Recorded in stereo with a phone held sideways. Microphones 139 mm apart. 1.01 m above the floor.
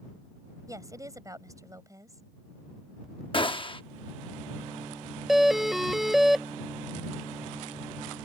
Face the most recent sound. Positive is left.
turn(degrees=0)  # may be behind; listen again after turning